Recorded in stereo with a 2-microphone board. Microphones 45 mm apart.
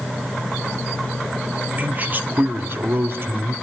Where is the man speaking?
35° right (ahead or behind), 1.3 m; by 3.5 s 55° right (ahead or behind), 2 m.